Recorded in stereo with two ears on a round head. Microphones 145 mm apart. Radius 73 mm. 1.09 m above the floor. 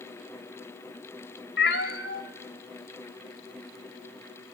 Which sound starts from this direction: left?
A cat meowing, at 1.6 s.